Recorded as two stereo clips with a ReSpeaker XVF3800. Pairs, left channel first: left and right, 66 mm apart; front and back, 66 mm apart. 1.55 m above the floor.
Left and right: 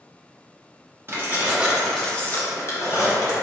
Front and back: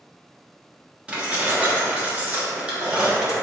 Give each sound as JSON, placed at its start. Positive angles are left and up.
{"t": 1.1, "sound": "keys jangling", "azimuth_deg": -115, "distance_m": 0.8}